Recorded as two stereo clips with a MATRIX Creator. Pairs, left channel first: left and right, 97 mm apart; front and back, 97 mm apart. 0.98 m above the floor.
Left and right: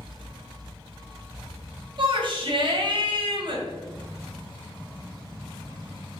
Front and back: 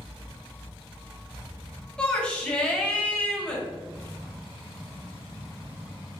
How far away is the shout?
About 1.3 m.